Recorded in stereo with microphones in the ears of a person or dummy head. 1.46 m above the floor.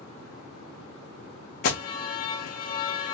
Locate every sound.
1.6 s an alarm: 40° left (ahead or behind), 0.8 m